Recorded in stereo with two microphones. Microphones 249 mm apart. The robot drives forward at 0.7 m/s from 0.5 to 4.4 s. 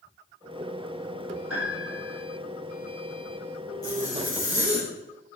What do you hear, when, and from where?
1.5 s a piano: 65° right (ahead or behind), 4.5 m; by 2.2 s 60° right (ahead or behind), 5 m
3.8 s a zipper: 15° left (ahead or behind), 4.5 m